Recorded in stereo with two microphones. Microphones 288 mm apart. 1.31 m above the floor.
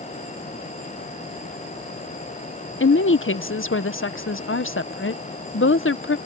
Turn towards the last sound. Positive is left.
turn(degrees=45)  # may be behind; listen again after turning